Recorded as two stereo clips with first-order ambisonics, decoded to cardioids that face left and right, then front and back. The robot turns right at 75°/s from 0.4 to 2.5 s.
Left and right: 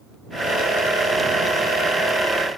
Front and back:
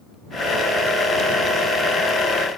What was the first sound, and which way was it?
Only background noise.